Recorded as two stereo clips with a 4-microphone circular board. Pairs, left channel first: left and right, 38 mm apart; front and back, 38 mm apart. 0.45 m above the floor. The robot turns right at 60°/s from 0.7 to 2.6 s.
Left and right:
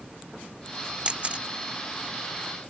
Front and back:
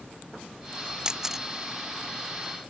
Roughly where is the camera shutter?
Behind right.